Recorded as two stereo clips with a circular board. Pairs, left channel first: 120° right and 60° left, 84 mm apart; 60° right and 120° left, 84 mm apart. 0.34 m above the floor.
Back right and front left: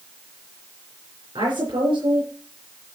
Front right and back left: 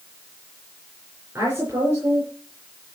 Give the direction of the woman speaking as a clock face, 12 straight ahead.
10 o'clock.